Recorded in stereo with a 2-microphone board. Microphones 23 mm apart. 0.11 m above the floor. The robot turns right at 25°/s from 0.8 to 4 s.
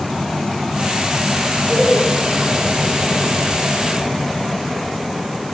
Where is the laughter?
5° left (ahead or behind), 2.5 m; by 2.1 s centre (ahead or behind), 2.5 m.